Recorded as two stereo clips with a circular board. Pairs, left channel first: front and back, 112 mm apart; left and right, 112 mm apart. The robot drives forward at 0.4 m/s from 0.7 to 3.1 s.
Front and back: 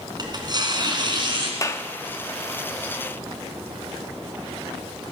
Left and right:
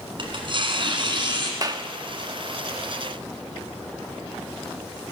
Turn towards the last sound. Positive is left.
turn(degrees=-135)